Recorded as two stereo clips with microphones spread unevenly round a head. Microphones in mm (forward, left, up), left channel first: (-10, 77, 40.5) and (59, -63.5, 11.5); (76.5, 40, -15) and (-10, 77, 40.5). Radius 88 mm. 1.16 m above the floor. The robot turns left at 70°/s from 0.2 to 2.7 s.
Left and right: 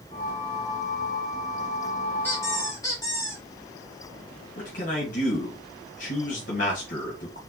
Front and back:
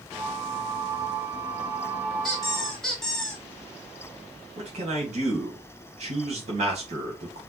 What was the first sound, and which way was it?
A squeak, 160° left.